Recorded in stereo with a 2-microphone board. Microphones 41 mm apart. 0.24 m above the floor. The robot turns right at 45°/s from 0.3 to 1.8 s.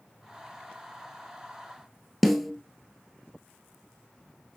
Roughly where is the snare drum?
Centre.